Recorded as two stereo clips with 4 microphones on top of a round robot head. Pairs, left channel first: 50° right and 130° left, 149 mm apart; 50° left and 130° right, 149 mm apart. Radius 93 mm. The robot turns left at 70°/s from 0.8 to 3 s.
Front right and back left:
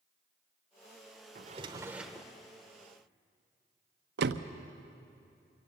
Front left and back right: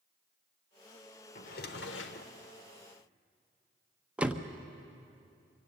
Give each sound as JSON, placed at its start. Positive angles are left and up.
{"t": 1.4, "sound": "a drawer", "azimuth_deg": 90, "distance_m": 0.9}
{"t": 4.2, "sound": "a door slam", "azimuth_deg": 145, "distance_m": 0.7}